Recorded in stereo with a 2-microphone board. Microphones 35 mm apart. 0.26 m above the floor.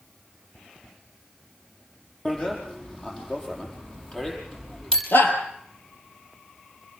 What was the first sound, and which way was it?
A bicycle bell, 20° left (ahead or behind).